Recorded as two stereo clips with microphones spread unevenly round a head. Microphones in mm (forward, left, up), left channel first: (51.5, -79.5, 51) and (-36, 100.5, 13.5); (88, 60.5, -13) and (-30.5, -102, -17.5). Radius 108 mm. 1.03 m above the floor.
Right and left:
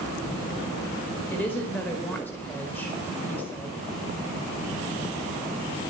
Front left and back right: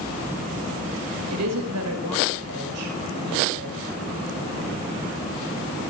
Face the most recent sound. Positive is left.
turn(degrees=-145)